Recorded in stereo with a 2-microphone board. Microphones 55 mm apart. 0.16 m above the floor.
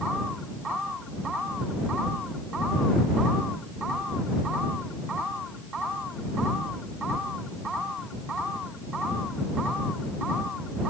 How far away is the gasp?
No gasp in this recording.